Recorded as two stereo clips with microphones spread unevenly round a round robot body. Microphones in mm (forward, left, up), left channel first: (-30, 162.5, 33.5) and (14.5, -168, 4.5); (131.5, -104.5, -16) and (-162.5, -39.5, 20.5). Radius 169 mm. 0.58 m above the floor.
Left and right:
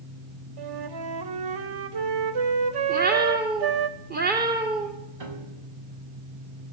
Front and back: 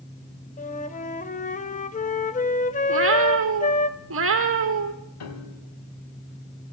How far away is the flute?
About 2 m.